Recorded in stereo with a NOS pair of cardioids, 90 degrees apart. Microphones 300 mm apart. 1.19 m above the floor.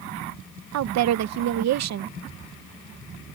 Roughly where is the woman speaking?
Ahead right.